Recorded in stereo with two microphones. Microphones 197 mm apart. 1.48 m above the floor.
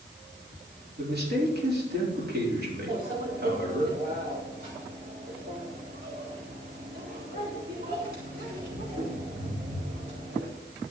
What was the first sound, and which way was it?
A man speaking, 55° right (ahead or behind).